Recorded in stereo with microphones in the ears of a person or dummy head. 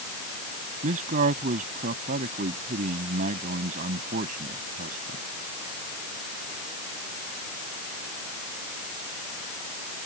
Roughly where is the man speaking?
Right.